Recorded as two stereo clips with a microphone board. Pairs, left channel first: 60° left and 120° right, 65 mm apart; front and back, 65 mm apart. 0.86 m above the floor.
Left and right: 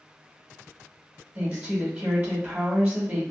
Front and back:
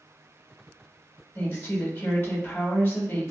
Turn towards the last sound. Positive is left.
turn(degrees=-60)